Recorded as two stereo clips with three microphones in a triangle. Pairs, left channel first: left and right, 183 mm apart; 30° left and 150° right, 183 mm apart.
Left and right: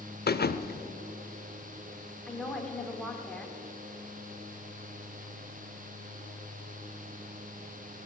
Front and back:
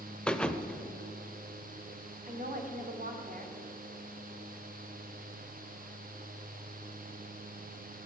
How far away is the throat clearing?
No throat clearing in this recording.